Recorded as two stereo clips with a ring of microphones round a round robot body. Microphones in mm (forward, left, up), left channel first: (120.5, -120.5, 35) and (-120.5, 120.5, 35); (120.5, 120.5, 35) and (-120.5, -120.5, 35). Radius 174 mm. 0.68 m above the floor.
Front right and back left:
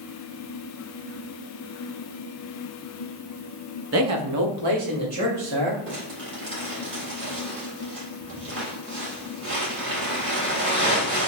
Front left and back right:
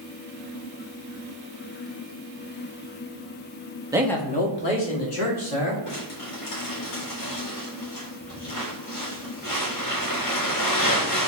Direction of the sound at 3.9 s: 150° left.